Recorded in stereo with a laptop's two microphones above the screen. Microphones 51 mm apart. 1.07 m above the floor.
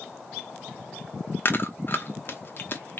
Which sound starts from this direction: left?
Chewing, at 1.4 s.